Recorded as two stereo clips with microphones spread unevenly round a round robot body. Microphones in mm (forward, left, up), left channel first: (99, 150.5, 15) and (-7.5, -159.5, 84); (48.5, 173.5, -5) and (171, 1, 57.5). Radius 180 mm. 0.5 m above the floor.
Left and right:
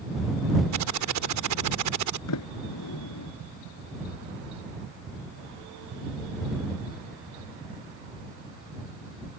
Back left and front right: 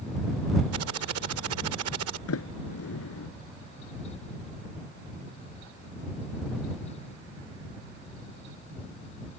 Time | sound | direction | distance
0.7 | typing on a keyboard | 70° right | ?
2.3 | a sliding door | 120° left | ?